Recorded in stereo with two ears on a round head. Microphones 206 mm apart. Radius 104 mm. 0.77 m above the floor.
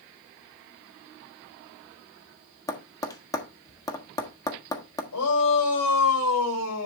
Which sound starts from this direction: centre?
Tapping, at 2.7 s.